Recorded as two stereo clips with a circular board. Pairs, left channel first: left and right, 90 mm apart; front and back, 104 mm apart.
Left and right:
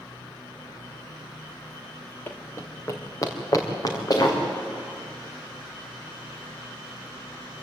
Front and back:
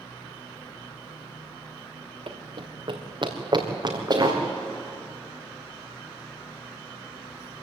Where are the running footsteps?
155° left, 2.5 m; by 4.4 s 130° left, 4 m.